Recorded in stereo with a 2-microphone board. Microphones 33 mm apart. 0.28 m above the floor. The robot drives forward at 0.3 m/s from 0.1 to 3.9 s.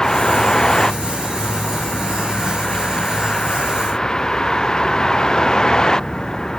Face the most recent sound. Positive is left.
turn(degrees=20)  # may be behind; listen again after turning